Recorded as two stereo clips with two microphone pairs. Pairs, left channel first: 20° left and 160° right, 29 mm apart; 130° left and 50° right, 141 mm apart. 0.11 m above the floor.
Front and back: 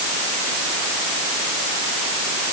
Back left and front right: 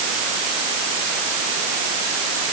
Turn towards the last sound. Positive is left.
No sound to turn to.